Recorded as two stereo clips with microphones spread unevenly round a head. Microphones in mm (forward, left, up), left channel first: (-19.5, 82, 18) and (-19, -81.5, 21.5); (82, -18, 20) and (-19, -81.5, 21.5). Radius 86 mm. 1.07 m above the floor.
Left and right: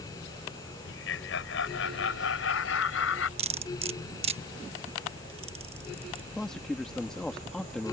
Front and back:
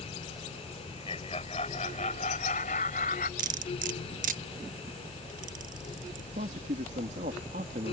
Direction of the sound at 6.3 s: 175° left.